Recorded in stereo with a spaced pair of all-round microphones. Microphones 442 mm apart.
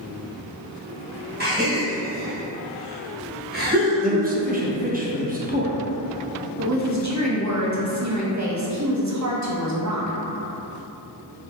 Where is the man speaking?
20° right (ahead or behind), 0.6 m.